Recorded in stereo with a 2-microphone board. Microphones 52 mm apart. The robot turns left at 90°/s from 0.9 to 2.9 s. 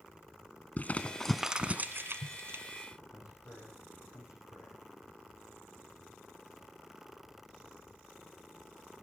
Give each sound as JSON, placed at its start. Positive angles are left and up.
{"t": 0.8, "sound": "crumpling", "side_deg": 30, "distance_m": 1.1}
{"t": 3.1, "sound": "a man speaking", "side_deg": 70, "distance_m": 9.5}